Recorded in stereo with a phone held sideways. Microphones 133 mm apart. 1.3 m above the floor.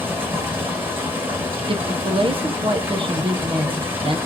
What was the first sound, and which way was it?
Running water, 15° right (ahead or behind).